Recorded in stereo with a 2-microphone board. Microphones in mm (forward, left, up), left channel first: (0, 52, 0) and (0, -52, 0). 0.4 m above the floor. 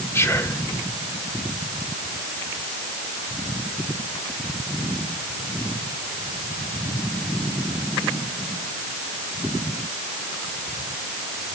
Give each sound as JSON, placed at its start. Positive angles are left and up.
{"t": 0.1, "sound": "whispering", "side_deg": 25, "distance_m": 1.2}